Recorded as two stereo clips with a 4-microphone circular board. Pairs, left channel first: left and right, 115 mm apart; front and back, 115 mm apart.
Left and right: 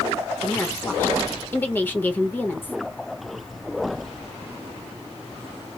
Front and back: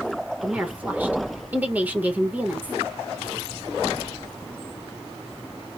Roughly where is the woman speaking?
Behind left.